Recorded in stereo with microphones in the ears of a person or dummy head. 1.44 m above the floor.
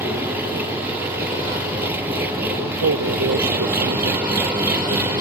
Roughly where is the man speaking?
Right.